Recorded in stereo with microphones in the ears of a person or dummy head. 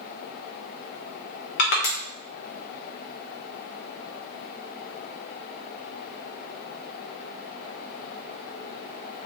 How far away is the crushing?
About 0.9 m.